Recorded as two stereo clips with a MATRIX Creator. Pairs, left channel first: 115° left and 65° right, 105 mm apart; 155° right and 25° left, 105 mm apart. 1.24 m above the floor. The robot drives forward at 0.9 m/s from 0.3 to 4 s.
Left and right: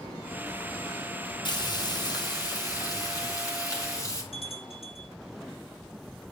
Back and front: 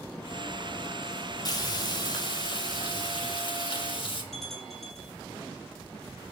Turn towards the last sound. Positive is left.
turn(degrees=115)